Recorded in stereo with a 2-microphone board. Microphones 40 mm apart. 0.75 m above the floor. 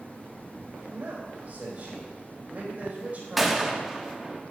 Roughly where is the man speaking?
Right.